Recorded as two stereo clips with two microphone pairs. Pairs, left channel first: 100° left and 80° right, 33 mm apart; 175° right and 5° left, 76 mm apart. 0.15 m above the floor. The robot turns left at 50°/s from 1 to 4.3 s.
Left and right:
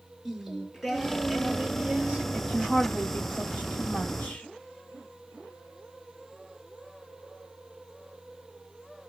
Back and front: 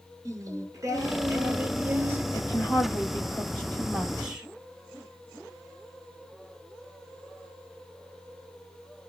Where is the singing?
5° left, 1.7 m; by 2.2 s 55° right, 1.7 m.